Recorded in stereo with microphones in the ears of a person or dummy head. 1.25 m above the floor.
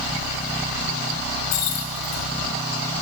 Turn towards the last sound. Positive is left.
turn(degrees=50)  # may be behind; listen again after turning